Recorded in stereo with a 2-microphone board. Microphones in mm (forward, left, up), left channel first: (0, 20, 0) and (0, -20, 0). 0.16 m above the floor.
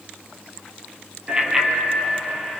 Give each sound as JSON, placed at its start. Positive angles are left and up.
{"t": 1.3, "sound": "a bicycle bell", "side_deg": -20, "distance_m": 2.5}